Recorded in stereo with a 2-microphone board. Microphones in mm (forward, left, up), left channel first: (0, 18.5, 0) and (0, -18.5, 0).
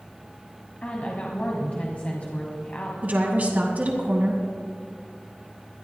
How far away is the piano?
No piano in this recording.